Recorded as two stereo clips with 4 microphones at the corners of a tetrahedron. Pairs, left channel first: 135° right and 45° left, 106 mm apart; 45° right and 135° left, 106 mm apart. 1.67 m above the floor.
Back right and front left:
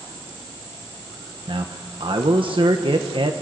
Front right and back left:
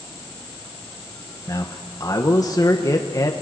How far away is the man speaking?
About 1.4 m.